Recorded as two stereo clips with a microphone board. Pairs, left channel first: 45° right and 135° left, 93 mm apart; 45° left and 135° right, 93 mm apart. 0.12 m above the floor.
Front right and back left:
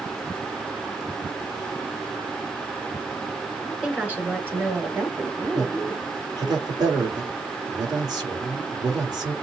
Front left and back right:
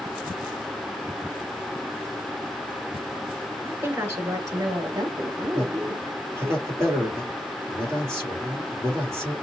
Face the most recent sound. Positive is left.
turn(degrees=165)